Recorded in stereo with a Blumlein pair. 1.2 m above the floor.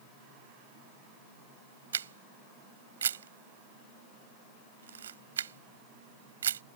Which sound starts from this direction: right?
A camera shutter, at 1.9 s.